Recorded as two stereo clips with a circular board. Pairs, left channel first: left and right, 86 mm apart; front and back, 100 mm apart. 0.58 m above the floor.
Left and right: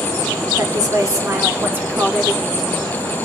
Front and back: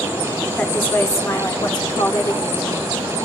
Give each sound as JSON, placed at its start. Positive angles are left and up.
{"t": 0.6, "sound": "a woman speaking", "azimuth_deg": -70, "distance_m": 1.5}